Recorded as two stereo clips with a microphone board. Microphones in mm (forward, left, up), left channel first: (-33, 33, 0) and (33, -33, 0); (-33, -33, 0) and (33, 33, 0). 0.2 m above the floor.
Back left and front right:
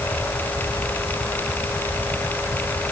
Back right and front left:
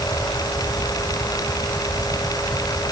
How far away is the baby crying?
I don't hear a baby crying.